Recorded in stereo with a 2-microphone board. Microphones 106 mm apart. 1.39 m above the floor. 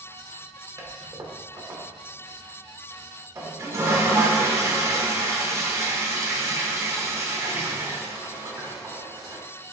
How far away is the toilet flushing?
About 0.6 m.